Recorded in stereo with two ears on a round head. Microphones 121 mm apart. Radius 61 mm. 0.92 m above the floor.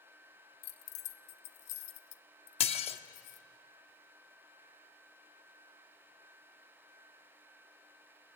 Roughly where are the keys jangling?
Left.